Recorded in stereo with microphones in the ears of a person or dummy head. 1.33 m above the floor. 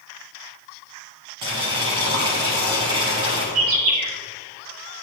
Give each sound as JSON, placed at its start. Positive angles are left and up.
{"t": 1.4, "sound": "boiling", "side_deg": -25, "distance_m": 1.3}
{"t": 3.5, "sound": "a bird", "side_deg": -80, "distance_m": 2.0}